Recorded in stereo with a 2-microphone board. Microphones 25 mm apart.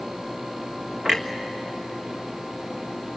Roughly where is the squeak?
I don't hear a squeak.